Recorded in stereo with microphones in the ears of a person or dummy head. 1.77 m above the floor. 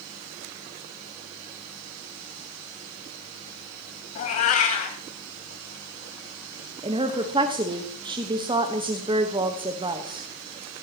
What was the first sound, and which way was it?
A cat meowing, 45° left (ahead or behind).